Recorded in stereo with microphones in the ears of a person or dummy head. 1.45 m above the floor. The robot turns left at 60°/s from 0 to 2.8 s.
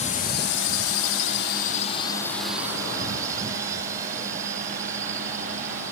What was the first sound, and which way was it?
A drone, 35° left (ahead or behind).